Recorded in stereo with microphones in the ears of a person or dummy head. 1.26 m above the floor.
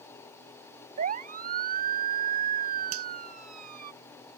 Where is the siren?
40° right (ahead or behind).